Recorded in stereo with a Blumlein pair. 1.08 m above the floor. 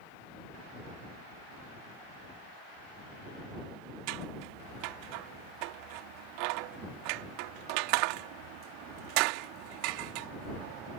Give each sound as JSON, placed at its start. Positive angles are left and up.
{"t": 4.1, "sound": "scissors", "azimuth_deg": -45}